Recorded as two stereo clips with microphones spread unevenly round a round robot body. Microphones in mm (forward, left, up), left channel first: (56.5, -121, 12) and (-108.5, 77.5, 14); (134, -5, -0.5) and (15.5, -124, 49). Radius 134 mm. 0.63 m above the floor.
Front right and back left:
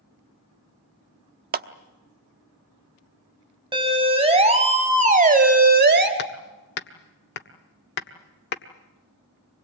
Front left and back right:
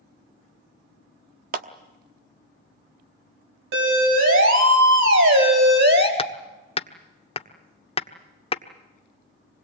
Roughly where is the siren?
Behind.